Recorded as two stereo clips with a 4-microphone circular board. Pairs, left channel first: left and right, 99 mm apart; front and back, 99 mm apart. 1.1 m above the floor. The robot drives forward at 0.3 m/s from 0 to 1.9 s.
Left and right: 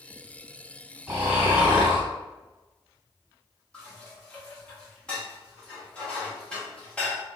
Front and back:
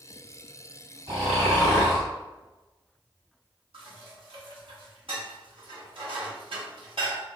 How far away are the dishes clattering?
About 1.0 m.